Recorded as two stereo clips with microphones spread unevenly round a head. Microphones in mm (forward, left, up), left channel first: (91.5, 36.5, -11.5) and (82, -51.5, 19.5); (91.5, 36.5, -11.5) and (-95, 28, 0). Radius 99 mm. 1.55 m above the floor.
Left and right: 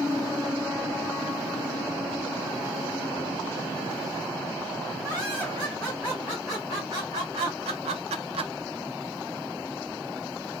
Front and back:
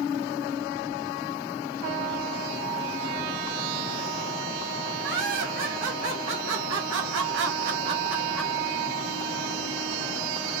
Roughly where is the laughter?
Behind.